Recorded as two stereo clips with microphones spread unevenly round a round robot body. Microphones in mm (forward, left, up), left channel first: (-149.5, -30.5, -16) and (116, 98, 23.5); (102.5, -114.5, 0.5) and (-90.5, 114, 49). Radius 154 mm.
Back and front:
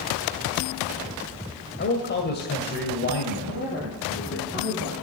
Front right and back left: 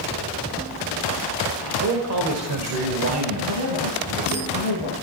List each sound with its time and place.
1.8 s a man speaking: 165° left, 2 m
3.5 s a woman speaking: 145° left, 10 m